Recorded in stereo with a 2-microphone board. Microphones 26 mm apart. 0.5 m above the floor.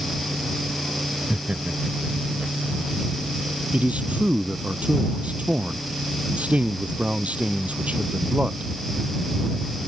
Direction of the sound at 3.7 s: 55° right (ahead or behind).